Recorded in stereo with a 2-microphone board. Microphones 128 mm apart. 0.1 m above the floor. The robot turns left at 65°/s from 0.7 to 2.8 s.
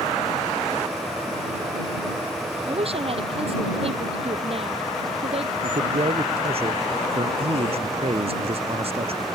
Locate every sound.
2.7 s a woman speaking: 45° right (ahead or behind); by 5.5 s 50° right (ahead or behind)
5.6 s a man speaking: 50° right (ahead or behind)